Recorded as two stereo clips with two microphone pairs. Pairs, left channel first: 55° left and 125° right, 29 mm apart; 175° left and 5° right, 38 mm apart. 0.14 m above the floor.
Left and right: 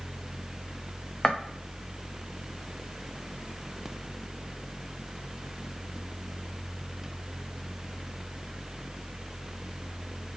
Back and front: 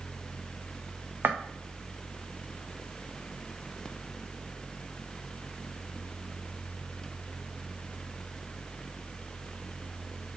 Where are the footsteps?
5° right, 0.8 m.